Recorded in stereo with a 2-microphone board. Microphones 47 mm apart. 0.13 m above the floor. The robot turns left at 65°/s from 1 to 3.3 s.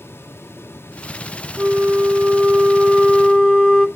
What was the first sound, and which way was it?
A flute, 85° right.